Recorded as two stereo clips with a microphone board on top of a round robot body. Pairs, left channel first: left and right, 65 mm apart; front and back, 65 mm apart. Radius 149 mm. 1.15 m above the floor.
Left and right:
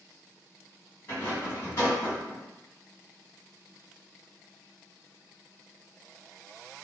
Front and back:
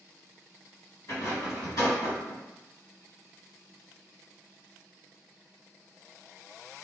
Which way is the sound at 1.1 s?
35° left.